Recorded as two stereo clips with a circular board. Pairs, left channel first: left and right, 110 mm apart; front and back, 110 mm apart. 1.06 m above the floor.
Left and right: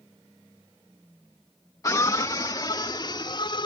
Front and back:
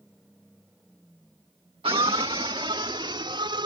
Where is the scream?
145° left; by 3.7 s 135° left.